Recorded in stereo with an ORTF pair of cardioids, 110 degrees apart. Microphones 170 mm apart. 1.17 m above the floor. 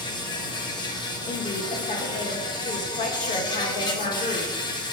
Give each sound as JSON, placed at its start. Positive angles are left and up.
{"t": 0.0, "sound": "an insect", "azimuth_deg": 25, "distance_m": 0.8}
{"t": 1.3, "sound": "a woman speaking", "azimuth_deg": 50, "distance_m": 1.5}